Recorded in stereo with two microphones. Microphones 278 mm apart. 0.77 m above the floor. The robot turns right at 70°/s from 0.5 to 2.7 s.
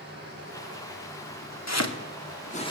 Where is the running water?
35° right, 9 m; by 2.7 s 120° left, 9 m.